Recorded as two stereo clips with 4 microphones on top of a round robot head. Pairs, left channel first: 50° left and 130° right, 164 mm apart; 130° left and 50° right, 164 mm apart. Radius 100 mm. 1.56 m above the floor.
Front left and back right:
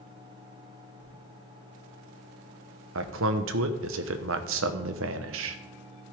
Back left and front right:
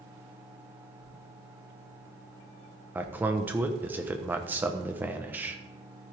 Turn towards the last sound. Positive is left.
turn(degrees=-130)